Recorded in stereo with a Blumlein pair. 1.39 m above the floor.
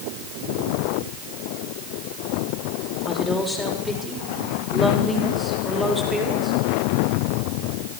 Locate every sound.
3.0 s a woman speaking: 5° left, 5.5 m; by 6.6 s 5° right, 7 m